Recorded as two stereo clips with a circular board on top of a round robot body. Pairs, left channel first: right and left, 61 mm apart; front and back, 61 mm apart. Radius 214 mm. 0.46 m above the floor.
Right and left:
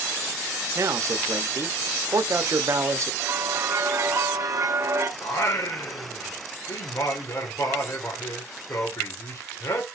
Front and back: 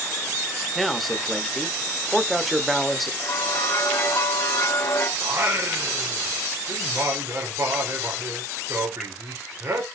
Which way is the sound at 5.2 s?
130° right.